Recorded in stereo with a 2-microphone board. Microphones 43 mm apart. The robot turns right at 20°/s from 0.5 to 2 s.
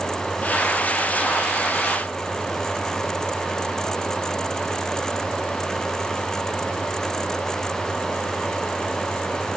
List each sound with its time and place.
Only background noise.